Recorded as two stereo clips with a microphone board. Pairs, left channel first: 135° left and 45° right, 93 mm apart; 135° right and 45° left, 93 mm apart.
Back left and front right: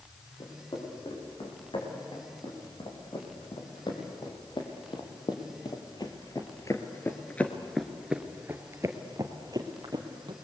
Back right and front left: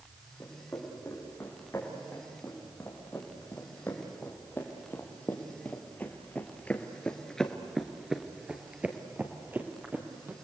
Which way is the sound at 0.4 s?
160° left.